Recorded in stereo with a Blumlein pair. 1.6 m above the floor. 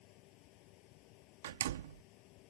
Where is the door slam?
60° right.